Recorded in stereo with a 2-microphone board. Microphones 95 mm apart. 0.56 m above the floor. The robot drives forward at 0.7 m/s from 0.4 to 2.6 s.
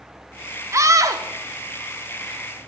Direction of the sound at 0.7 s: 35° right (ahead or behind).